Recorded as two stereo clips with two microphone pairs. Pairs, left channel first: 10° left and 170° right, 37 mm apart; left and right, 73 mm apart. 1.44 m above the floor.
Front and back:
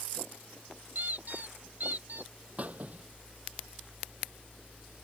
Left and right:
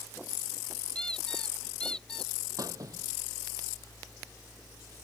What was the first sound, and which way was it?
A squeak, 165° left.